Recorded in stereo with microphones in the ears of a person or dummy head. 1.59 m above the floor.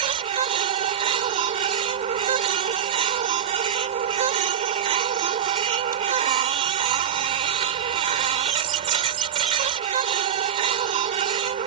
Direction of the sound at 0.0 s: 40° right (ahead or behind).